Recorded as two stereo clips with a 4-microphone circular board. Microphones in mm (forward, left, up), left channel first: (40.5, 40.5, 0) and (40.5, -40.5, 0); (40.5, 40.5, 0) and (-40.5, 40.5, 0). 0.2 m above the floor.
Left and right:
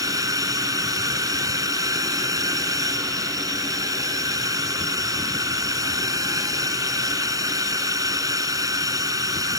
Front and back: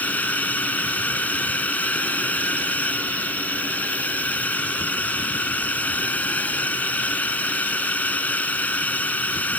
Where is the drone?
70° right.